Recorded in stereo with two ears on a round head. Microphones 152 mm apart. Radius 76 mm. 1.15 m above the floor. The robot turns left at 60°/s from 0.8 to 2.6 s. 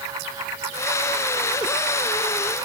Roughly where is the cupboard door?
No cupboard door in this recording.